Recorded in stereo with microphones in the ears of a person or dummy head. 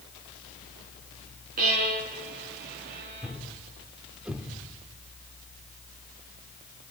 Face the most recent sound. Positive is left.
turn(degrees=-10)  # may be behind; listen again after turning